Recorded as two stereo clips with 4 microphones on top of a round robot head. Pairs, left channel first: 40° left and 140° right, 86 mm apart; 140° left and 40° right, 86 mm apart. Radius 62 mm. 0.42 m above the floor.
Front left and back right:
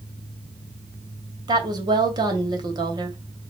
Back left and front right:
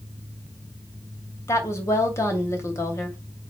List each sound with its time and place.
1.5 s a woman speaking: 170° right, 3 m